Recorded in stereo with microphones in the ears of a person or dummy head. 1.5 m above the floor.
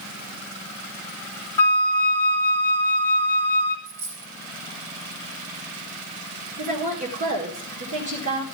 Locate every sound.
1.6 s a flute: 15° left (ahead or behind), 1.2 m
3.9 s a dropped coin: 70° right (ahead or behind), 3 m
6.6 s a woman speaking: 50° right (ahead or behind), 1.7 m